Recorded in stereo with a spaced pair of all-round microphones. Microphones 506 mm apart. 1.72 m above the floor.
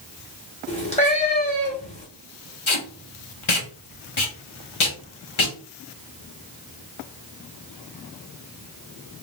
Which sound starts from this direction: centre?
A cat meowing, at 0.7 s.